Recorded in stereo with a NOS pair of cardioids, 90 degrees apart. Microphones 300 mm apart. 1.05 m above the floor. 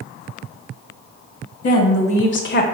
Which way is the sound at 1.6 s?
55° left.